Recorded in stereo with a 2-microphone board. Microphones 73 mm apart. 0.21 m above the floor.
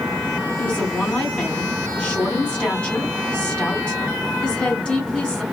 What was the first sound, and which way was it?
A woman speaking, 15° left (ahead or behind).